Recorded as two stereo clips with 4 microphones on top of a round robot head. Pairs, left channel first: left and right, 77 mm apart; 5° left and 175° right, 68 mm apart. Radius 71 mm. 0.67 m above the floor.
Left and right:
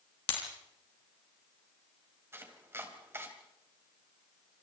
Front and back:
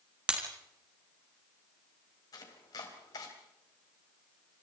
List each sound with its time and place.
0.3 s breaking glass: 110° left, 4.5 m
2.3 s chopping: 30° right, 3.5 m